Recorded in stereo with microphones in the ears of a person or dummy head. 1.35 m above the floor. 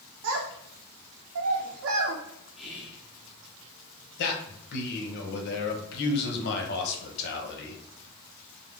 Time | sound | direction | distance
0.2 | a child speaking | 75° right (ahead or behind) | 0.6 m
2.6 | whispering | centre (ahead or behind) | 0.7 m
4.2 | a man speaking | 60° left (ahead or behind) | 0.9 m